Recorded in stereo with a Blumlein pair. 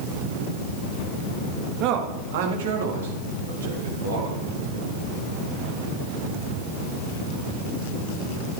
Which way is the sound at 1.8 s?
40° right.